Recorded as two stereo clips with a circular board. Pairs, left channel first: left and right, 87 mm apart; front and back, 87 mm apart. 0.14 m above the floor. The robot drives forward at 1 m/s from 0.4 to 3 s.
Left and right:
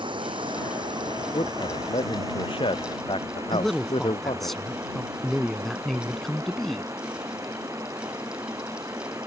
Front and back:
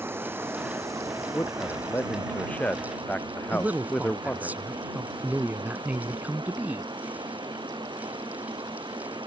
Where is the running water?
115° right; by 9.3 s 145° right.